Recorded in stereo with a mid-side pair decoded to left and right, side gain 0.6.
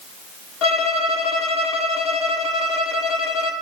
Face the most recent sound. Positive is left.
turn(degrees=70)